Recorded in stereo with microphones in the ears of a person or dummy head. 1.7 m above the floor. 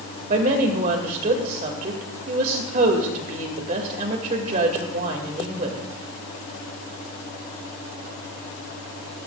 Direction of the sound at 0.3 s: 45° right (ahead or behind).